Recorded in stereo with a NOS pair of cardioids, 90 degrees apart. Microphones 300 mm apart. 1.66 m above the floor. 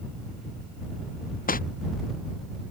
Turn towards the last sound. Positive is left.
turn(degrees=30)